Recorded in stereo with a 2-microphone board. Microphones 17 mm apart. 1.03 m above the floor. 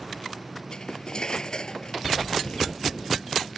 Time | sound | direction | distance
0.7 | cutlery clinking | 50° left (ahead or behind) | ?